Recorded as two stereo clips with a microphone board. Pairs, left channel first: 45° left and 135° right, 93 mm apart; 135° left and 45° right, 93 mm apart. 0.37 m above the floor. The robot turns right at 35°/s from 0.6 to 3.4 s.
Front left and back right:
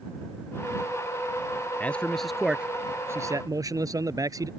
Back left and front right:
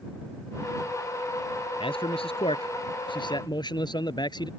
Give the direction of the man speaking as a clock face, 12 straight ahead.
8 o'clock.